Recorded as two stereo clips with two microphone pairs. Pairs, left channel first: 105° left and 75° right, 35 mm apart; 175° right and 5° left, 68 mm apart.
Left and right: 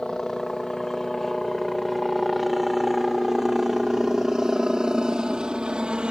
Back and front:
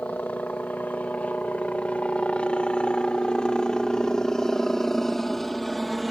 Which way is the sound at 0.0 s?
155° left.